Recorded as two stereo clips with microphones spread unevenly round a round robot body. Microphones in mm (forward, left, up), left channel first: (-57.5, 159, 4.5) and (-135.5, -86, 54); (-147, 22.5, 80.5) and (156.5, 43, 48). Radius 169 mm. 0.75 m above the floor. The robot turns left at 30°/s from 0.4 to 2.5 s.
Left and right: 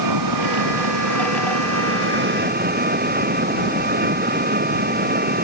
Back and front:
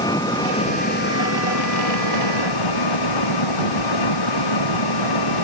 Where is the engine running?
95° right; by 5.5 s 160° right.